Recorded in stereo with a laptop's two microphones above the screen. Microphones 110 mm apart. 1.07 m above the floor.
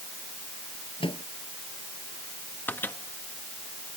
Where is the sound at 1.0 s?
50° left (ahead or behind).